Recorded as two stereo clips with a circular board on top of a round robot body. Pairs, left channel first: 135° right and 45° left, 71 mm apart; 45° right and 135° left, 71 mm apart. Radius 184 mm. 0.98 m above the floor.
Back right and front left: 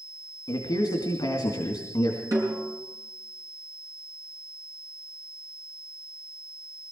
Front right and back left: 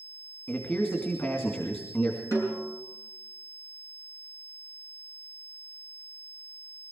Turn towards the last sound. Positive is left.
turn(degrees=0)